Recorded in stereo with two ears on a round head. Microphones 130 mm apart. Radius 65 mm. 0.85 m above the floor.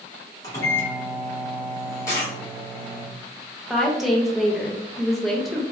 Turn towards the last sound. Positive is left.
turn(degrees=0)  # may be behind; listen again after turning